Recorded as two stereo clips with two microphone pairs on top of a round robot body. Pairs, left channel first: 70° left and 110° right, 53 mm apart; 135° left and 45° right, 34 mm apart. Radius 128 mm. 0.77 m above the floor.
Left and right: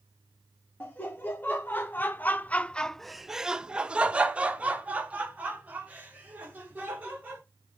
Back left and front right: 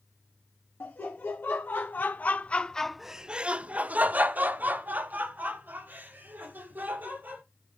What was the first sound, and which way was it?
Laughter, 130° left.